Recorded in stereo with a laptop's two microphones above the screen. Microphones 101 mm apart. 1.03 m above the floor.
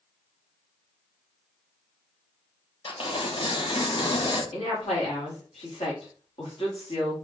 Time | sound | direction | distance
2.9 | tearing paper | 60° left (ahead or behind) | 0.8 m
4.5 | a woman speaking | 75° left (ahead or behind) | 2.5 m